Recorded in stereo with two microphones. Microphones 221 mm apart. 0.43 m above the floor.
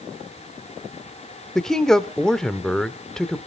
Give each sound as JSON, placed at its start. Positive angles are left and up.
{"t": 1.6, "sound": "a man speaking", "side_deg": 0, "distance_m": 0.9}